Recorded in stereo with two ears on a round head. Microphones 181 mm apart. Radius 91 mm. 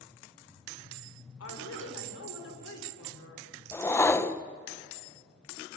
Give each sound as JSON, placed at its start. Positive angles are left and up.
{"t": 1.4, "sound": "a woman speaking", "side_deg": 85, "distance_m": 6.5}
{"t": 3.7, "sound": "a whoosh", "side_deg": 10, "distance_m": 0.8}